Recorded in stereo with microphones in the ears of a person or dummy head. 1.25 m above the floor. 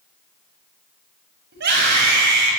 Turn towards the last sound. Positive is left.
turn(degrees=-55)  # may be behind; listen again after turning